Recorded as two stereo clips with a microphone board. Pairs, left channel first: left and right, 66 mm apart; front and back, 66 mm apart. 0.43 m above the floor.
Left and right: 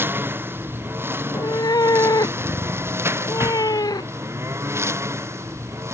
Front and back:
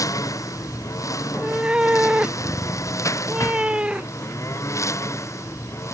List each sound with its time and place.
0.0 s a lawn mower: 35° right; by 6.0 s 40° right
1.2 s a cat meowing: 105° left